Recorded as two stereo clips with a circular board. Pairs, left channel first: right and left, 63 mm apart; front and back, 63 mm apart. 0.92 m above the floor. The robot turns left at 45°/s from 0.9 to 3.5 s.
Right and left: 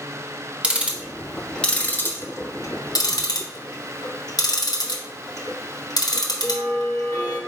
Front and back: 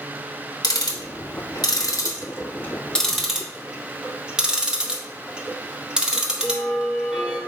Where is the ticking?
15° left, 0.7 m; by 7.4 s 100° right, 0.7 m.